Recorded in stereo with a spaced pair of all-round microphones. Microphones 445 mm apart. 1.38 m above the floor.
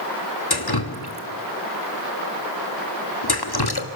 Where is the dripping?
55° left (ahead or behind), 1.8 m.